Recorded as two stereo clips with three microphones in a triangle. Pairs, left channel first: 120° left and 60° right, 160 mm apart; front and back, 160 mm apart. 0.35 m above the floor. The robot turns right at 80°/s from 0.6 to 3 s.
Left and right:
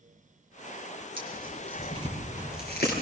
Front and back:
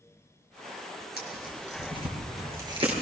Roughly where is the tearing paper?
Ahead.